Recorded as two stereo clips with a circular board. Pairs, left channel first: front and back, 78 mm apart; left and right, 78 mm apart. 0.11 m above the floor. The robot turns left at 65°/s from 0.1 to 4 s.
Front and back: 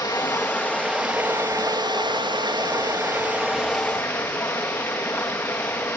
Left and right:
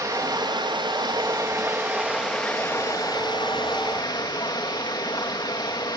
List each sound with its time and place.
0.0 s running water: 40° right, 4.5 m; by 6.0 s 65° left, 4.5 m